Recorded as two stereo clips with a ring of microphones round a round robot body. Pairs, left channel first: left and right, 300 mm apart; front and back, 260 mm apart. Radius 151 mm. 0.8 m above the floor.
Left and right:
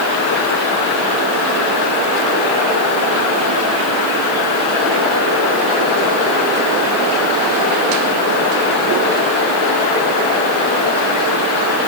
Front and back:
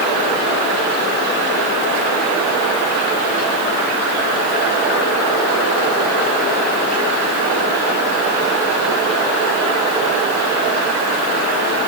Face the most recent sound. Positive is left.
No sound to turn to.